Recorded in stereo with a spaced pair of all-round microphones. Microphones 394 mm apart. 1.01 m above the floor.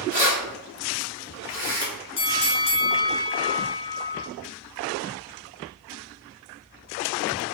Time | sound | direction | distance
0.1 | keys jangling | 40° right (ahead or behind) | 1.1 m
2.2 | a bell | 80° left | 0.5 m